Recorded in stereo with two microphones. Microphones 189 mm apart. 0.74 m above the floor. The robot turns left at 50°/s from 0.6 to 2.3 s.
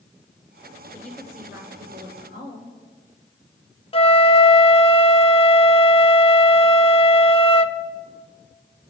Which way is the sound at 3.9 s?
30° left (ahead or behind).